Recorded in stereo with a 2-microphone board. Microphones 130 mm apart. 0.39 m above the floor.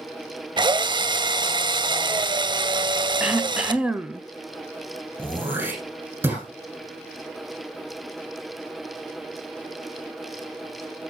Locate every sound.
0.6 s a drill: 35° right (ahead or behind), 0.6 m
3.2 s throat clearing: 10° right (ahead or behind), 0.7 m
5.2 s throat clearing: 20° right (ahead or behind), 8 m